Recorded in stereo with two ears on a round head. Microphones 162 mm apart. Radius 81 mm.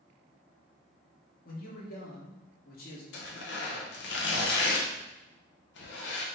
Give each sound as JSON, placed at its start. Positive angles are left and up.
{"t": 1.4, "sound": "a man speaking", "side_deg": 55, "distance_m": 1.3}
{"t": 3.1, "sound": "tearing paper", "side_deg": 65, "distance_m": 0.8}